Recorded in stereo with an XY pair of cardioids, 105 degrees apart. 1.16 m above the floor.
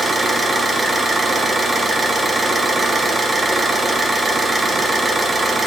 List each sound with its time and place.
0.0 s an engine running: 25° right, 1.1 m